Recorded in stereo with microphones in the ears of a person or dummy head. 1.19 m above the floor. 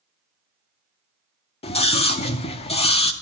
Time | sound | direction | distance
1.6 | a scream | 30° left (ahead or behind) | 0.6 m